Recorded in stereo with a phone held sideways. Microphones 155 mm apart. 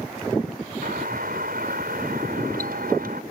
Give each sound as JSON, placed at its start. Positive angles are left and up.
{"t": 0.8, "sound": "a doorbell", "side_deg": -70}